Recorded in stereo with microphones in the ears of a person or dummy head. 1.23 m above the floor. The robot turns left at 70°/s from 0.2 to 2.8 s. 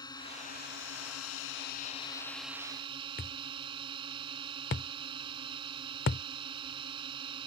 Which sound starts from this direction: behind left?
A drone, at 0.0 s.